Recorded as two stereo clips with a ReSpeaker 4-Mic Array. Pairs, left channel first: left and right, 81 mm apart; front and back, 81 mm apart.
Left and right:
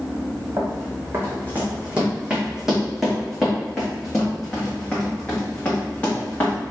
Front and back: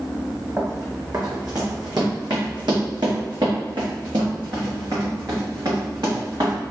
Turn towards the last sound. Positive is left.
turn(degrees=155)